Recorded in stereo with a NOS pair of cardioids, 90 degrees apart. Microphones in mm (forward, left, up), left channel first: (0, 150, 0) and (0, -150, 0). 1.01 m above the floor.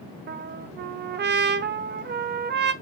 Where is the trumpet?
35° right, 0.6 m.